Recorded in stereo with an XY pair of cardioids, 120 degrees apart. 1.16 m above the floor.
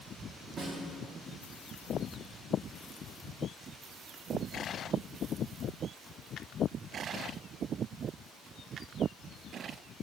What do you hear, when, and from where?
0.6 s a snare drum: 40° right, 2 m